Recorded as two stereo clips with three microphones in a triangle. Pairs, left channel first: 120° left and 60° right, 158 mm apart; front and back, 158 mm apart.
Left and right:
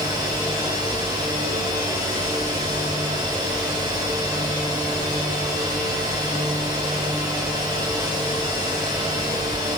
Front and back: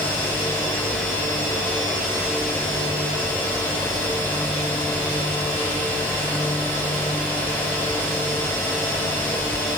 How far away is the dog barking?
No dog barking in this recording.